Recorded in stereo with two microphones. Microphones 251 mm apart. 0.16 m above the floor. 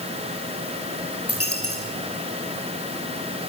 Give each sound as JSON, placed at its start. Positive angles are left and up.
{"t": 1.3, "sound": "a dropped coin", "side_deg": 65, "distance_m": 7.0}